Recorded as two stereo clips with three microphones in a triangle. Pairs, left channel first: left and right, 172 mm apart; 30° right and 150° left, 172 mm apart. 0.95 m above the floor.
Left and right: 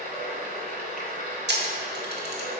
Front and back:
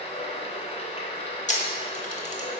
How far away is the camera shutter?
About 1.2 m.